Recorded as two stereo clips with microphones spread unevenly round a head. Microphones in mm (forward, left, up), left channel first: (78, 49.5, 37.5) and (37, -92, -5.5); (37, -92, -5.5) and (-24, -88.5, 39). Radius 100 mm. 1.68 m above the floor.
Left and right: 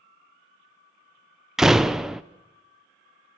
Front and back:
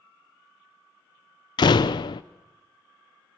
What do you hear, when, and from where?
1.6 s a door slam: 25° left, 0.5 m